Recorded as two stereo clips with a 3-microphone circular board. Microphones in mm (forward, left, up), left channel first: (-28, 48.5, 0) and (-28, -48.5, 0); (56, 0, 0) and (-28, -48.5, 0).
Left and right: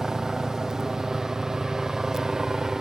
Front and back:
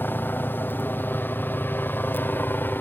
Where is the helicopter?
10° right.